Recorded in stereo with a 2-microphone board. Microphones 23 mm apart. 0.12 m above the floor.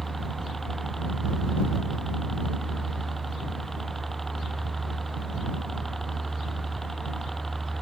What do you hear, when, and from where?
0.0 s a helicopter: 10° left (ahead or behind)